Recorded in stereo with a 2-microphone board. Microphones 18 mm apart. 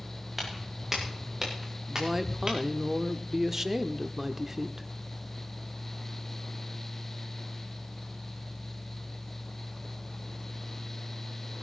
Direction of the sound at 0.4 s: 10° right (ahead or behind).